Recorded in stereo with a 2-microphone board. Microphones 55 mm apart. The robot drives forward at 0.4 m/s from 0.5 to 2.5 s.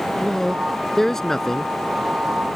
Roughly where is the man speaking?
Centre.